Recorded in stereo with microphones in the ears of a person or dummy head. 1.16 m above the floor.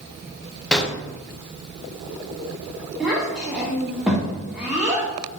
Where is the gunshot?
5° left (ahead or behind), 0.6 m.